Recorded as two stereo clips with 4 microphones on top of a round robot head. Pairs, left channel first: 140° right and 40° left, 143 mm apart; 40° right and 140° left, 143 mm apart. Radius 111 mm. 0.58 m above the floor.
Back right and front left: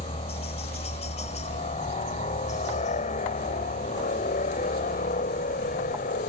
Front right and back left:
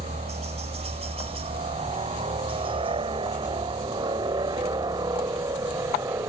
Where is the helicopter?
Straight behind; by 6.3 s 155° right.